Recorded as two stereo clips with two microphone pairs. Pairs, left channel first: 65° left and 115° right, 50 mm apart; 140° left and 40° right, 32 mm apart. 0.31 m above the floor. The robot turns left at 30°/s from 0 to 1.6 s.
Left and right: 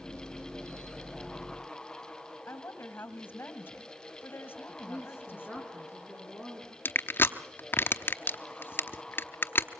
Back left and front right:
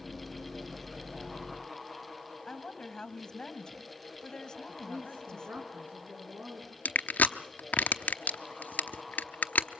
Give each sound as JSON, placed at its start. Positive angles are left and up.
{"t": 2.5, "sound": "a woman speaking", "azimuth_deg": 80, "distance_m": 1.8}
{"t": 4.7, "sound": "a woman speaking", "azimuth_deg": -40, "distance_m": 4.0}
{"t": 6.8, "sound": "crushing", "azimuth_deg": 105, "distance_m": 0.9}